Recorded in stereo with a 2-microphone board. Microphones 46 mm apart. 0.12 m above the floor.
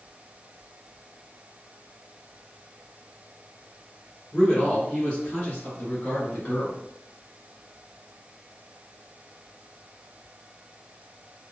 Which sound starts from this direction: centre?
A man speaking, at 4.3 s.